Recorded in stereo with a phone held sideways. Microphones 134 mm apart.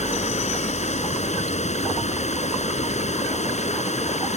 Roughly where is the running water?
Left.